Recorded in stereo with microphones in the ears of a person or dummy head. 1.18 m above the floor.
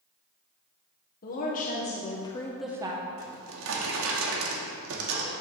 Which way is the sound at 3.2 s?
75° right (ahead or behind).